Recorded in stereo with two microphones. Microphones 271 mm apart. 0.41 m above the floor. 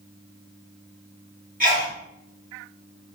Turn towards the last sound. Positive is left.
turn(degrees=-30)  # may be behind; listen again after turning